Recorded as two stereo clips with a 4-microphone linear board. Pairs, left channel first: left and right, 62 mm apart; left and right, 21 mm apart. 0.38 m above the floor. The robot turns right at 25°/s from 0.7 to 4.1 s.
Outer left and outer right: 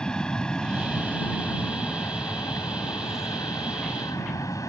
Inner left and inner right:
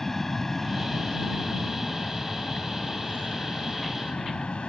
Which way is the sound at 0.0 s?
15° left.